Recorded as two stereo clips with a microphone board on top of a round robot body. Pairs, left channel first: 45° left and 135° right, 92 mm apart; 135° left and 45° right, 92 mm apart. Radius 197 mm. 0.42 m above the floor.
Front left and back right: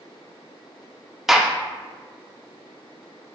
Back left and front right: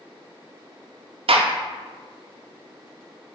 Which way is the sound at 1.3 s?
45° right.